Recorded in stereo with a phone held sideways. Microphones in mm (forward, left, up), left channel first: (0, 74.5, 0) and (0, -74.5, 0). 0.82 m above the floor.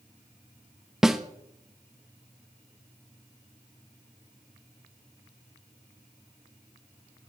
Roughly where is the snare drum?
Centre.